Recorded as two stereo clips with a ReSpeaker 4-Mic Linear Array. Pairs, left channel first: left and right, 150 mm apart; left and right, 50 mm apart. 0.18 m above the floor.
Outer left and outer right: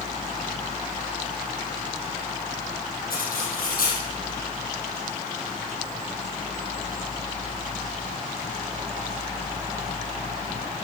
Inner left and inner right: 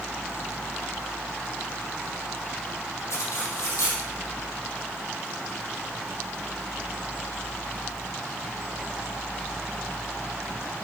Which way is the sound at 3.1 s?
80° left.